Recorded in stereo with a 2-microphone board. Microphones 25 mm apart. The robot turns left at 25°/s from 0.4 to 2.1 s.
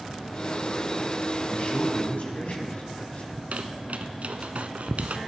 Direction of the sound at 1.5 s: 70° left (ahead or behind).